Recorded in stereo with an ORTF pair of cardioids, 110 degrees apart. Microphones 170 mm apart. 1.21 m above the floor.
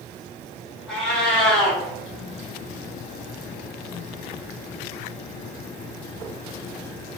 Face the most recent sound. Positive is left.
turn(degrees=5)